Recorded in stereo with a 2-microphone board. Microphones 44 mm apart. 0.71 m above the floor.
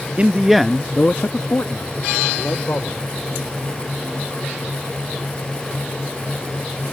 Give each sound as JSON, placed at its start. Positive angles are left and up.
{"t": 0.2, "sound": "a man speaking", "side_deg": -30}